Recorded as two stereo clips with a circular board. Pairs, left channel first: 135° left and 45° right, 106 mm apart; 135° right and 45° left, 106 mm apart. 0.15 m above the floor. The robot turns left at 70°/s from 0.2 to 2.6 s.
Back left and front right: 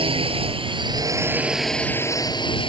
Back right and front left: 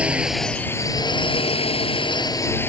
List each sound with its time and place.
0.0 s a drone: 35° right; by 2.7 s 160° left